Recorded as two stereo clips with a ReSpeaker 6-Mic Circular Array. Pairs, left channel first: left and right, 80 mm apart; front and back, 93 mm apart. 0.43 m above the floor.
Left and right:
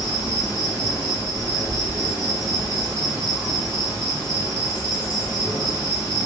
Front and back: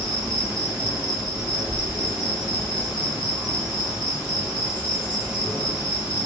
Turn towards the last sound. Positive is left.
turn(degrees=100)